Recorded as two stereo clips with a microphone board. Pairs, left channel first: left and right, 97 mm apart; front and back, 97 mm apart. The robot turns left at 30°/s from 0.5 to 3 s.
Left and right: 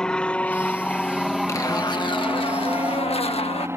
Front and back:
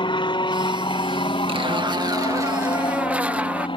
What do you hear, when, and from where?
0.0 s an aircraft: 10° left; by 3.8 s 25° right
1.5 s a zipper: 150° left; by 3.7 s 105° left